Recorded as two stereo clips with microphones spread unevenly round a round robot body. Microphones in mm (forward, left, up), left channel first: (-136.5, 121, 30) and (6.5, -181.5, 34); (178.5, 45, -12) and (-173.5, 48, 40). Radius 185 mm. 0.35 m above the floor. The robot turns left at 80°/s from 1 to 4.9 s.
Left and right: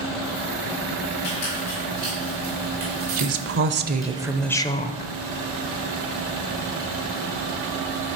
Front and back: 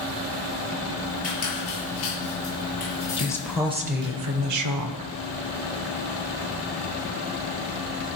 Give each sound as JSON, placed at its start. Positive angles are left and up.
{"t": 1.2, "sound": "a squeak", "azimuth_deg": 65, "distance_m": 5.5}
{"t": 3.2, "sound": "a woman speaking", "azimuth_deg": -55, "distance_m": 1.0}